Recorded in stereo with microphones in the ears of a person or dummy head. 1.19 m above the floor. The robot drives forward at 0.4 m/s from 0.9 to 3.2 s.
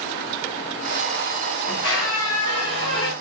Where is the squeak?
30° left (ahead or behind), 2.5 m; by 3.1 s 25° left (ahead or behind), 3 m.